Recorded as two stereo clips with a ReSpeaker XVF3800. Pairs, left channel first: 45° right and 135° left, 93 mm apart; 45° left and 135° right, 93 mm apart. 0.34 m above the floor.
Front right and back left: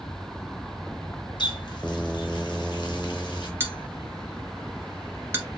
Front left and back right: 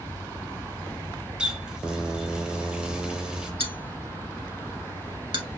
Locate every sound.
1.4 s a running tap: 55° right, 1.3 m
3.6 s a bell: 160° right, 1.4 m